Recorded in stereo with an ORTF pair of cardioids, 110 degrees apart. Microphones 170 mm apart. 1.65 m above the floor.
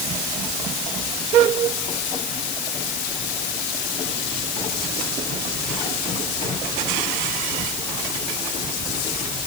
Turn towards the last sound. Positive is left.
No sound to turn to.